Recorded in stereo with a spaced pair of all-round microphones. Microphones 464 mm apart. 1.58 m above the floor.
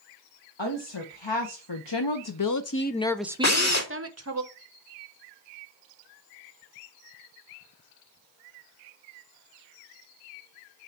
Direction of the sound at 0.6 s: 70° left (ahead or behind).